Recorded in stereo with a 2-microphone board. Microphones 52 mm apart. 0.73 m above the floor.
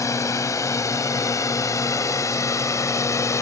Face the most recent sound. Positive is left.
turn(degrees=65)  # may be behind; listen again after turning